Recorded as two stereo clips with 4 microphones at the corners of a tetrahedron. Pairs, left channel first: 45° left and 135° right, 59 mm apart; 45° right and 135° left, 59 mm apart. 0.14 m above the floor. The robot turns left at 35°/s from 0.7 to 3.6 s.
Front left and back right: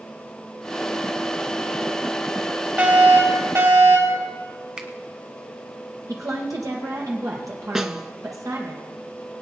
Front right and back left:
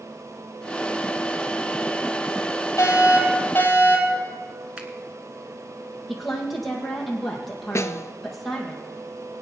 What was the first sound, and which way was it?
A fire alarm, 75° right.